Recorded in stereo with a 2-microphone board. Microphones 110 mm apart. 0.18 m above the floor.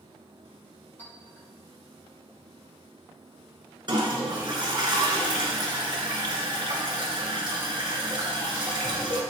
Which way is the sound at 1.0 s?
15° left (ahead or behind).